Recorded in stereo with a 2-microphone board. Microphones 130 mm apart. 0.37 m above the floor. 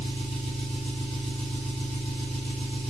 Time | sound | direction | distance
0.0 | an engine running | 45° left (ahead or behind) | 2.5 m